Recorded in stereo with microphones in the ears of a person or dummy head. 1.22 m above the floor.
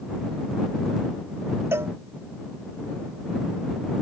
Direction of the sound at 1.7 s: 15° right (ahead or behind).